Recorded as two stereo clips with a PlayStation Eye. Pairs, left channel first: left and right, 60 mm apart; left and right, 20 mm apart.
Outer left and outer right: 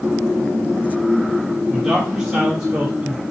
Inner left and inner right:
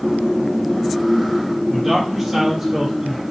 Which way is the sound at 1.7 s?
15° right (ahead or behind).